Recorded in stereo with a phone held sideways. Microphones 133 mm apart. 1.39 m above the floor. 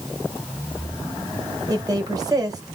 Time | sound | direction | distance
1.7 | a woman speaking | 30° right (ahead or behind) | 1.1 m